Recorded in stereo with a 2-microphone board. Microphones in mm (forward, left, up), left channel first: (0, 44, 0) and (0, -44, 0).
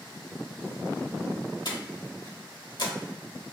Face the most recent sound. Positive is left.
turn(degrees=55)  # may be behind; listen again after turning